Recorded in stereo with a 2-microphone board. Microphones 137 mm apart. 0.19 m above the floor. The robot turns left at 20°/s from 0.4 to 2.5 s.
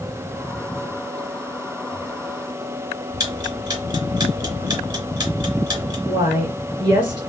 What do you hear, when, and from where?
3.2 s ticking: 30° right (ahead or behind), 2.5 m
6.1 s a woman speaking: 35° right (ahead or behind), 2 m